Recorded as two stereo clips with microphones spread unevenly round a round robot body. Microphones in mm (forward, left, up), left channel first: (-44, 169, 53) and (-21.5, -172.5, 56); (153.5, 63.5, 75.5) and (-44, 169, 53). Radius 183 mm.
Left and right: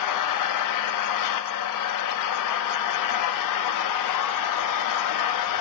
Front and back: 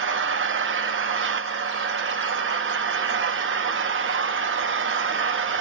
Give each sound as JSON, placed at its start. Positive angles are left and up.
{"t": 0.0, "sound": "an engine running", "azimuth_deg": 125, "distance_m": 0.8}